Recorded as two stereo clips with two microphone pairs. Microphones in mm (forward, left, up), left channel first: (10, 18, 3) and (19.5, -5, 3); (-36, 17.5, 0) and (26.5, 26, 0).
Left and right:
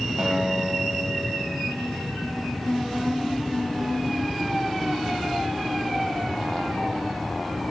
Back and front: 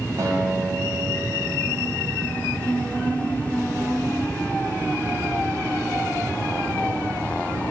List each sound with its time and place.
0.2 s a guitar: straight ahead, 2.5 m